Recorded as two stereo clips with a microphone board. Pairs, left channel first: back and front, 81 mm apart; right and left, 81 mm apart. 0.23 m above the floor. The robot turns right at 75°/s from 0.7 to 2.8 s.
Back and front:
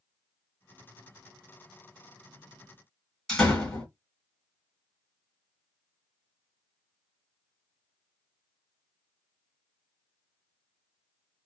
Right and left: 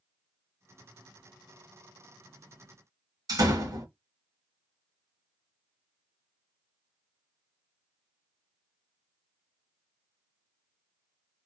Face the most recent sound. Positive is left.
turn(degrees=95)